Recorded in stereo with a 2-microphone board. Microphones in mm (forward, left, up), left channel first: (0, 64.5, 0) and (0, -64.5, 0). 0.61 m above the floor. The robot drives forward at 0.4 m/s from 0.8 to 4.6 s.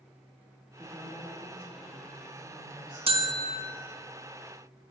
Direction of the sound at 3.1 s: 45° right (ahead or behind).